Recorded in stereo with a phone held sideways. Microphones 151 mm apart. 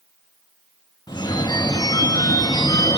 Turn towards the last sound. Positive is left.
turn(degrees=30)  # may be behind; listen again after turning